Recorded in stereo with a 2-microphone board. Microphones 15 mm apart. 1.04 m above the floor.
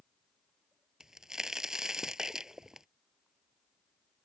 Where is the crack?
40° right (ahead or behind).